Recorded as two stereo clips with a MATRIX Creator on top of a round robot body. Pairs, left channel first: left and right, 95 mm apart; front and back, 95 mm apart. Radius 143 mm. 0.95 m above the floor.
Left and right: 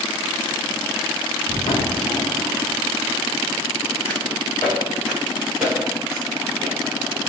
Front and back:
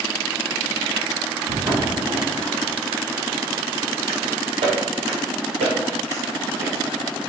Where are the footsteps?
140° left, 3 m; by 6.8 s 150° right, 1.6 m.